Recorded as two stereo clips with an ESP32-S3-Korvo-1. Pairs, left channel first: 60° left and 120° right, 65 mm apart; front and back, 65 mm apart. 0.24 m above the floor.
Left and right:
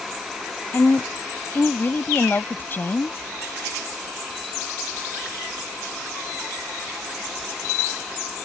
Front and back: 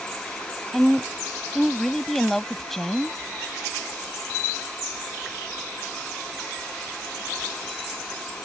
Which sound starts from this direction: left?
A woman speaking, at 0.7 s.